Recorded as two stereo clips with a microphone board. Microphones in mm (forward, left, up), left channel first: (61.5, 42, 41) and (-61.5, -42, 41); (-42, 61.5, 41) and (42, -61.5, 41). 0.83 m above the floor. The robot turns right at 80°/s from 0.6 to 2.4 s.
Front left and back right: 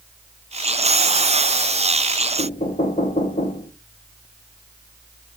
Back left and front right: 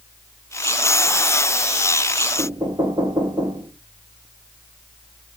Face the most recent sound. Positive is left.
turn(degrees=5)